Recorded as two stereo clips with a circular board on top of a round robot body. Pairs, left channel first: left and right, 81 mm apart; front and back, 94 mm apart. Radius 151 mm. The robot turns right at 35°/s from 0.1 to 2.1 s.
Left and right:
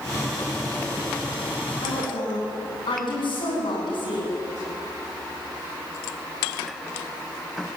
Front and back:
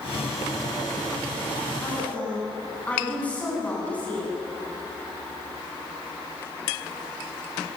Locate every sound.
1.8 s a woman speaking: 65° left, 9.5 m; by 4.3 s 75° left, 9.5 m